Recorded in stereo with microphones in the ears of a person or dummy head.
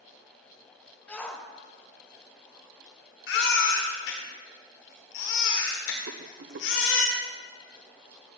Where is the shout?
10° left (ahead or behind), 1.3 m.